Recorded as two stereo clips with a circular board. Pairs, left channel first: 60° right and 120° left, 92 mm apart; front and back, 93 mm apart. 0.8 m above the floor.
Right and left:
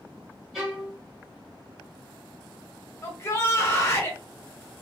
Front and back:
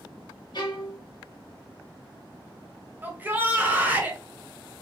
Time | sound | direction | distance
0.5 | a violin | 35° left | 1.1 m
3.0 | a shout | 115° right | 1.0 m